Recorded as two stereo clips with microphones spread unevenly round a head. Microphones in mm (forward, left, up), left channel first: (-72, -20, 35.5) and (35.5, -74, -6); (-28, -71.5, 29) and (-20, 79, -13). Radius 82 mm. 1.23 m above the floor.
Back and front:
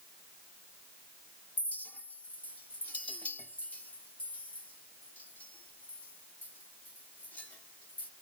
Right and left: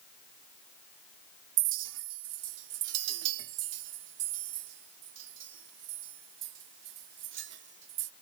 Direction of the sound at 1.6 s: 75° left.